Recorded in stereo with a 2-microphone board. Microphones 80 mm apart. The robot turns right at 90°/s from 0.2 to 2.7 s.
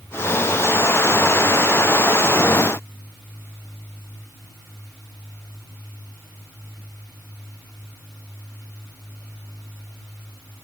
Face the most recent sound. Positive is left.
No sound to turn to.